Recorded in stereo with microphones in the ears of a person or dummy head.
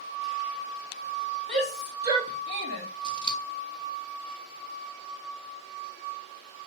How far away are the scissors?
About 0.6 m.